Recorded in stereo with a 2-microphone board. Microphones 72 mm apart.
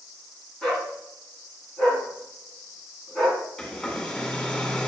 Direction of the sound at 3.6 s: 15° left (ahead or behind).